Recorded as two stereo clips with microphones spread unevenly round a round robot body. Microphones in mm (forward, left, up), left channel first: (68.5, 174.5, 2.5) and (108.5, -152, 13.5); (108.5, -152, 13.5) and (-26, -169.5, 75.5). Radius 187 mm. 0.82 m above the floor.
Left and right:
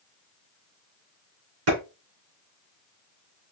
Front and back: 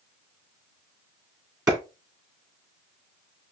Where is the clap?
105° right, 3 m.